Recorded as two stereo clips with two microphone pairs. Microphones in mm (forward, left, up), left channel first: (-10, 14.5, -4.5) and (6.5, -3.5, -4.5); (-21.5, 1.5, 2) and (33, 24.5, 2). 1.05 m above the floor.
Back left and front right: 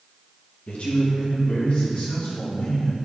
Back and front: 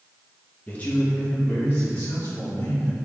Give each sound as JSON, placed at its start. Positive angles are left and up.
{"t": 0.7, "sound": "a man speaking", "azimuth_deg": 140, "distance_m": 1.0}